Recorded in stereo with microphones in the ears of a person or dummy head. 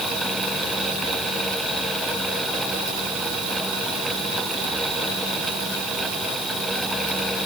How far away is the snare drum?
No snare drum in this recording.